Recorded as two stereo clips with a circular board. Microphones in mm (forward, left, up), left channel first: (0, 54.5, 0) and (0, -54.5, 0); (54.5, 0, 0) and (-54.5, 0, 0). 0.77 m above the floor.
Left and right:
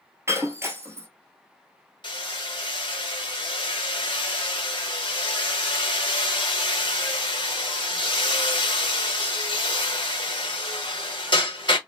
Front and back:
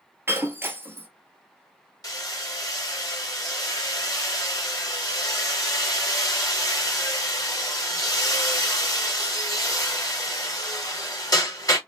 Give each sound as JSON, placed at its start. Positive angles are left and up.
{"t": 0.3, "sound": "breaking glass", "azimuth_deg": -130, "distance_m": 0.9}
{"t": 2.0, "sound": "hammering", "azimuth_deg": 50, "distance_m": 1.0}